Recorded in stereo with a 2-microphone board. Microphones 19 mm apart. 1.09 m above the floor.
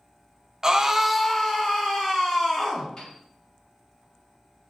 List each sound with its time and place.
0.6 s a scream: 20° right (ahead or behind), 0.8 m; by 2.9 s 35° left (ahead or behind), 2.0 m
3.0 s a piano: 50° left (ahead or behind), 2.0 m